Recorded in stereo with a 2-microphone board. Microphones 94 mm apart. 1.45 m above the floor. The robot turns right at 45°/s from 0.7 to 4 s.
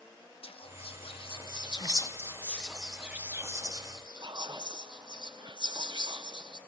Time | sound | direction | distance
0.4 | whispering | 80° left | 1.2 m